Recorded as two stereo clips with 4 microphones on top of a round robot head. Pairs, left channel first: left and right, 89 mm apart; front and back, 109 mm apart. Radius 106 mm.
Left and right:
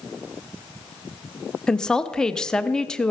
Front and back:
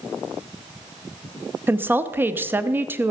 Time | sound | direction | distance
1.7 | a woman speaking | 160° left | 0.6 m